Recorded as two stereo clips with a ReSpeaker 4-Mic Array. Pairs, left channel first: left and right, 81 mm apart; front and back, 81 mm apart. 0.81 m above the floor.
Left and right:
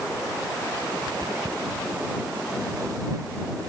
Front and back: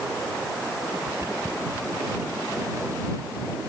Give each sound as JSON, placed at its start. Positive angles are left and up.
{"t": 1.1, "sound": "footsteps", "azimuth_deg": -130}